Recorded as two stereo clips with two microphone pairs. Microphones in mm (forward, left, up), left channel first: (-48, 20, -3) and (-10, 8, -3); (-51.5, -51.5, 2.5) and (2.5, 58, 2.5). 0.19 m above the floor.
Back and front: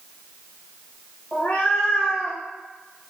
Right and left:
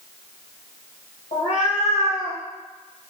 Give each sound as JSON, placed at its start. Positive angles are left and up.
{"t": 1.3, "sound": "a cat meowing", "azimuth_deg": -140, "distance_m": 1.2}